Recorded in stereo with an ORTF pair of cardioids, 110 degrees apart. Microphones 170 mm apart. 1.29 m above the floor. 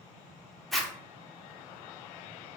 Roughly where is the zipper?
Ahead.